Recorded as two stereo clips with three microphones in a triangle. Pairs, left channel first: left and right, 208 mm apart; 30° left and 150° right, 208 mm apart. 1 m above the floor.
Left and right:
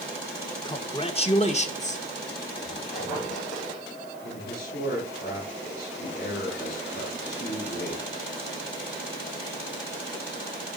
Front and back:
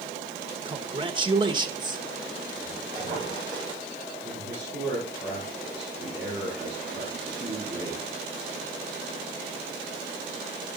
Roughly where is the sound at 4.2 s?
Behind left.